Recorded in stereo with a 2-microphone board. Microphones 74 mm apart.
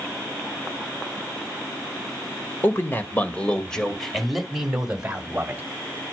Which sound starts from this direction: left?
A man speaking, at 2.6 s.